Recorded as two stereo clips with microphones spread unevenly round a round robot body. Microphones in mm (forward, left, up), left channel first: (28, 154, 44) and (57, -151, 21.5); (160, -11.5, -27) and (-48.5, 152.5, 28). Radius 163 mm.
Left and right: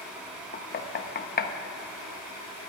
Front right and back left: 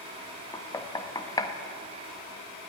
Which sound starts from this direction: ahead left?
Knocking, at 0.5 s.